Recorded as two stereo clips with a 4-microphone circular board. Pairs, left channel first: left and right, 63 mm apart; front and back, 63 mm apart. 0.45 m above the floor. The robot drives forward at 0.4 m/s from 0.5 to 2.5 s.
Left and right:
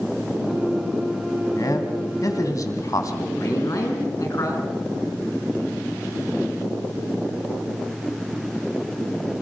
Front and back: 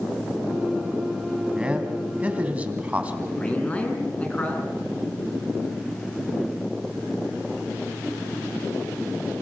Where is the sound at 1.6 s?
105° left, 3 m; by 3.3 s 115° left, 3.5 m.